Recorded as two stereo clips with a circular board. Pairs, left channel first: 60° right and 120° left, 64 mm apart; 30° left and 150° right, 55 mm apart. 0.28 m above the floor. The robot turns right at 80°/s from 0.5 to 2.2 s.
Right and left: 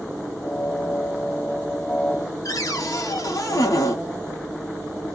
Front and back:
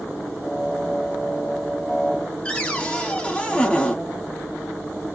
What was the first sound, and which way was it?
A cupboard door, 40° right.